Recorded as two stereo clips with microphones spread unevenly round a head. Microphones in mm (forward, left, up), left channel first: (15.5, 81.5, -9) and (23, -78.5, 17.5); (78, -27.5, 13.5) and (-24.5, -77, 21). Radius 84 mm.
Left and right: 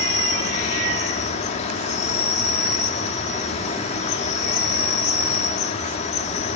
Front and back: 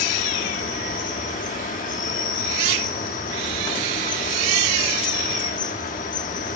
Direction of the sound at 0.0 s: 40° left.